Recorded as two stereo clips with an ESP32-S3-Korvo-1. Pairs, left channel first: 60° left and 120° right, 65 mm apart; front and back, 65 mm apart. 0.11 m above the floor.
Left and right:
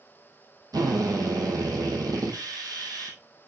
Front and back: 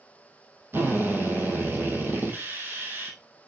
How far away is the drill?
About 2 m.